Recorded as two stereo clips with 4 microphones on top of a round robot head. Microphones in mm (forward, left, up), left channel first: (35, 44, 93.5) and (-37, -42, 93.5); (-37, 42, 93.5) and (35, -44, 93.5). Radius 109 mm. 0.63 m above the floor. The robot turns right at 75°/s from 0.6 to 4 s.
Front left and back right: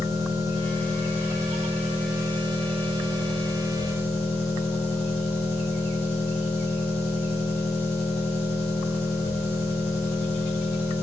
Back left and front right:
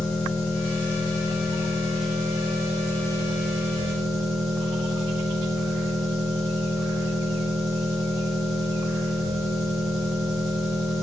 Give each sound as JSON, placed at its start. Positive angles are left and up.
{"t": 0.0, "sound": "an engine running", "azimuth_deg": 115, "distance_m": 1.1}